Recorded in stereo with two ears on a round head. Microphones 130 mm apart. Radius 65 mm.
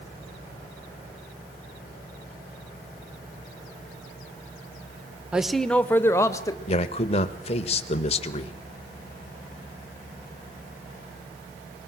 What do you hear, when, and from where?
5.3 s a man speaking: 5° right (ahead or behind), 0.8 m; by 6.6 s 25° left (ahead or behind), 1.3 m
6.7 s a man speaking: 45° left (ahead or behind), 1.1 m